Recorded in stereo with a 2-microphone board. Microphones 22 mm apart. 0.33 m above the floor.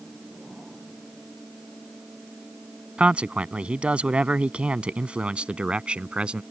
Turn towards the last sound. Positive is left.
turn(degrees=-55)  # may be behind; listen again after turning